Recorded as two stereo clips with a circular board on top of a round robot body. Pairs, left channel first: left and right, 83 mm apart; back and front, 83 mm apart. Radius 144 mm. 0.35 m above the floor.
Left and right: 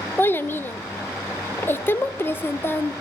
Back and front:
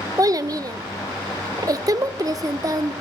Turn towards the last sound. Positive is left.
turn(degrees=30)